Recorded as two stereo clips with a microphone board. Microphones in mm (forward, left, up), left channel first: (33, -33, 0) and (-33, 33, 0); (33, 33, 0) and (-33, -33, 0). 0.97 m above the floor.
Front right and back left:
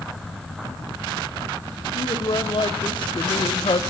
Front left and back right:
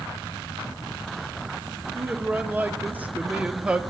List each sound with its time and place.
1.9 s a man speaking: 70° right, 2.5 m; by 3.8 s 55° right, 1.7 m